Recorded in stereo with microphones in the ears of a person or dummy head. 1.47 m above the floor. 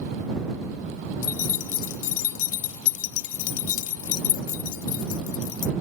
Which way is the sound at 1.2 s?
70° left (ahead or behind).